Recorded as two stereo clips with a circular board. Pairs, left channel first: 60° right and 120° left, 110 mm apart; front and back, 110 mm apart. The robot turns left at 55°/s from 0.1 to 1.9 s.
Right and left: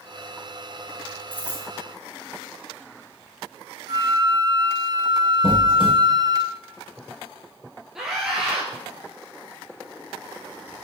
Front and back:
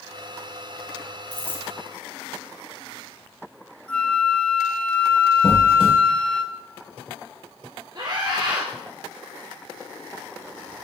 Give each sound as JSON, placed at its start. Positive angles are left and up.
{"t": 1.3, "sound": "a dropped coin", "azimuth_deg": 50, "distance_m": 2.5}
{"t": 3.9, "sound": "a flute", "azimuth_deg": 80, "distance_m": 0.8}
{"t": 5.4, "sound": "a squeak", "azimuth_deg": -25, "distance_m": 4.0}
{"t": 8.0, "sound": "a scream", "azimuth_deg": -155, "distance_m": 1.8}